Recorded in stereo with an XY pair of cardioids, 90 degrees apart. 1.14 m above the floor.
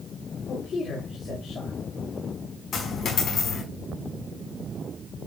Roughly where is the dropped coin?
Left.